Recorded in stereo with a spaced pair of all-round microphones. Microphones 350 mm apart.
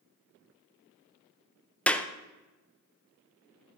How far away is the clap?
About 0.6 m.